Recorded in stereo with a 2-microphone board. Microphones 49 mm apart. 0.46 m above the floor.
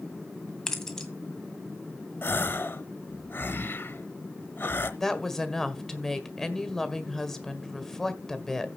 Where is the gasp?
50° left (ahead or behind), 0.9 m.